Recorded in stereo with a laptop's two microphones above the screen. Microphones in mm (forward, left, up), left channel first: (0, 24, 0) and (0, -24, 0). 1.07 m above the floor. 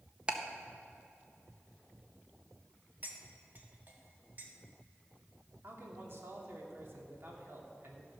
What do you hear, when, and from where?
0.3 s ticking: 20° right (ahead or behind), 0.7 m
3.0 s cutlery clinking: 40° right (ahead or behind), 1.2 m
5.6 s a man speaking: 55° right (ahead or behind), 2 m